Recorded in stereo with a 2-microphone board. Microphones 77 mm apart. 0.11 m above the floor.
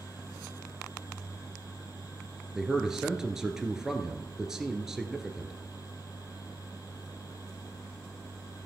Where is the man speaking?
5° right (ahead or behind), 1.4 m.